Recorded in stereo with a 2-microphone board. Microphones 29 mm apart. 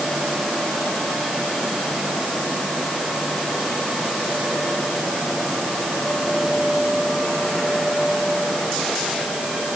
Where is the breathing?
No breathing in this recording.